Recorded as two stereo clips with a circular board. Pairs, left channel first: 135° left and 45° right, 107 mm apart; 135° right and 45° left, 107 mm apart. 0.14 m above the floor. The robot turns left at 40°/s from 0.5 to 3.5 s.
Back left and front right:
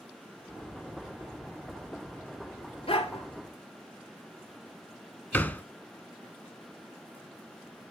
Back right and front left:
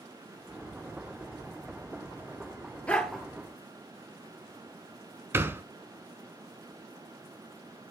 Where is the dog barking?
150° left, 1.1 m; by 3.2 s 135° left, 1.1 m.